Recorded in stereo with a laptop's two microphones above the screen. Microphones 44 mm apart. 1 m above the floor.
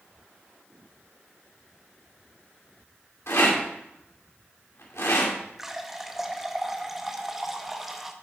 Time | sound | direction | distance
3.3 | a rattle | 75° left (ahead or behind) | 2 m
5.6 | a running tap | 5° right (ahead or behind) | 0.6 m